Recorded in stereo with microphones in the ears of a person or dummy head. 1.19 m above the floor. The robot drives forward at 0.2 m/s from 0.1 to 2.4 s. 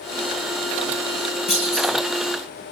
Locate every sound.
1.5 s a clunk: 35° left (ahead or behind), 4 m